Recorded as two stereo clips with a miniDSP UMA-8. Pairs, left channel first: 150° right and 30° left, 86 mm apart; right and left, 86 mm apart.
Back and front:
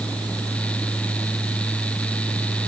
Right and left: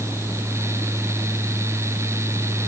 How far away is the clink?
No clink in this recording.